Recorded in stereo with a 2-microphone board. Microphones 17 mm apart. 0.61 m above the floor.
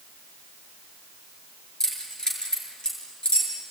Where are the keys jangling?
35° left (ahead or behind), 7 m; by 3.5 s 55° left (ahead or behind), 6.5 m.